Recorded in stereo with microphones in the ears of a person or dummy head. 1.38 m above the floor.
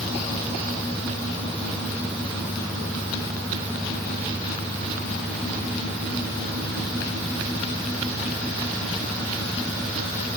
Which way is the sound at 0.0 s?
Centre (ahead or behind).